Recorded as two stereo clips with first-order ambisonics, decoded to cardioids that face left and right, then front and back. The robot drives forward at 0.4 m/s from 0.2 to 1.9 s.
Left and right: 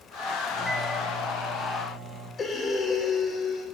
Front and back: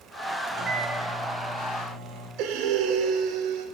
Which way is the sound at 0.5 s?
165° left.